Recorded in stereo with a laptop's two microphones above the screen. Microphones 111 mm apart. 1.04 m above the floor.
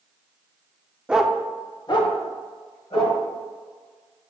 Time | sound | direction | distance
1.1 | a dog barking | 10° right (ahead or behind) | 0.6 m